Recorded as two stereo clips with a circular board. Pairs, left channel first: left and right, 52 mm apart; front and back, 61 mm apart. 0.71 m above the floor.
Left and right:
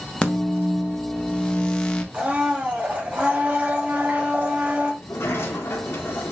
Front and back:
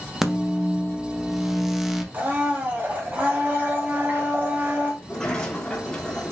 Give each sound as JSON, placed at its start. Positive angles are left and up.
{"t": 0.2, "sound": "a microwave", "azimuth_deg": 105, "distance_m": 0.7}
{"t": 2.1, "sound": "a blender", "azimuth_deg": -135, "distance_m": 1.1}
{"t": 5.0, "sound": "a sliding door", "azimuth_deg": 75, "distance_m": 1.2}